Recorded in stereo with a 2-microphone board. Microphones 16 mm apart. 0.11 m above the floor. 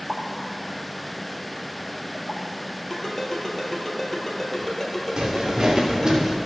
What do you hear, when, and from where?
0.1 s a pop: 50° right (ahead or behind), 1.7 m
2.9 s a ringtone: 15° left (ahead or behind), 2 m
5.2 s footsteps: 50° right (ahead or behind), 2 m; by 6.3 s 30° right (ahead or behind), 2.5 m